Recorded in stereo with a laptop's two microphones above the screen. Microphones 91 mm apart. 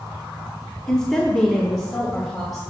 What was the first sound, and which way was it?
A woman speaking, 5° left (ahead or behind).